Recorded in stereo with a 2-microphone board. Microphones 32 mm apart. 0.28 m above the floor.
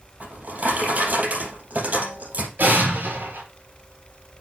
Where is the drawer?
55° right (ahead or behind), 4.5 m.